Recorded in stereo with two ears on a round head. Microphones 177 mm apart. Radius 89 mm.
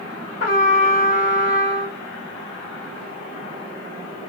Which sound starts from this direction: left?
A trumpet, at 0.4 s.